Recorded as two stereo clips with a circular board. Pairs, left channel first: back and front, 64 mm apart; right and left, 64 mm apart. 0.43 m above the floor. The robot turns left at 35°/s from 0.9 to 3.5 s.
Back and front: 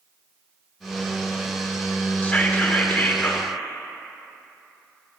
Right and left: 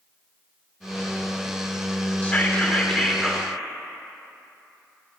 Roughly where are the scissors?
I don't hear scissors.